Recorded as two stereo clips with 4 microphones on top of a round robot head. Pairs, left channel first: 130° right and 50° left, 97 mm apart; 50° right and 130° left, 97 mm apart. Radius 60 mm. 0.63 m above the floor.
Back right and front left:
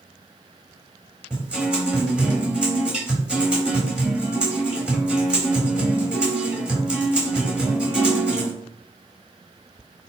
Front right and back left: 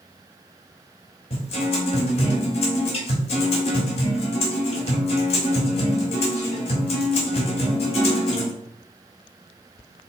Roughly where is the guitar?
Ahead right.